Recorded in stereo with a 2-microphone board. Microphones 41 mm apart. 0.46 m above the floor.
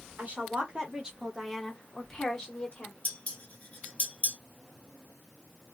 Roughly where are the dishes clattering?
Left.